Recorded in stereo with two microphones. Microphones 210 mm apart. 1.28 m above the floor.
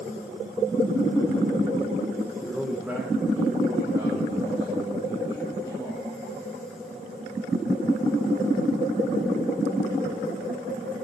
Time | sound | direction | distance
2.4 | a man speaking | 5° left (ahead or behind) | 0.8 m